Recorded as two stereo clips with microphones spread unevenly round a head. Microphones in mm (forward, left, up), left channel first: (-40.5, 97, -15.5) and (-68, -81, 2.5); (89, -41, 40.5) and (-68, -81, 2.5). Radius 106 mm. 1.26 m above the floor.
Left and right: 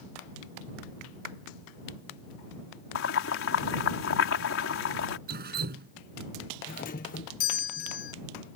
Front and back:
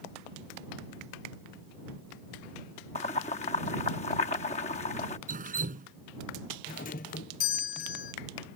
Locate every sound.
3.0 s boiling: 75° left
5.3 s dripping: 125° right
6.7 s a doorbell: 60° left